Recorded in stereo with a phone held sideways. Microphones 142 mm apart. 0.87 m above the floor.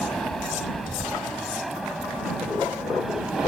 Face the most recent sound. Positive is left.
turn(degrees=-5)  # may be behind; listen again after turning